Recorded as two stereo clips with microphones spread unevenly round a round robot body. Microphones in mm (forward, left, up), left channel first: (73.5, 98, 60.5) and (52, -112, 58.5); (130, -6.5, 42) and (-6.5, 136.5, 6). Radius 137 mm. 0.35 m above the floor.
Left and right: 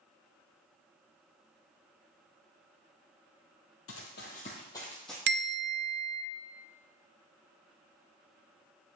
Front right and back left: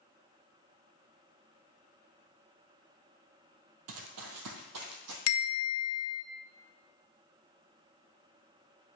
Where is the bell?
55° right, 0.7 m.